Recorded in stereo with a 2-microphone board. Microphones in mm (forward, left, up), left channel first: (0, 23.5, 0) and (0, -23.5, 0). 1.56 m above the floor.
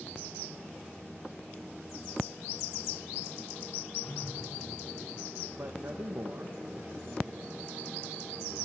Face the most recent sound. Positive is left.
turn(degrees=-70)  # may be behind; listen again after turning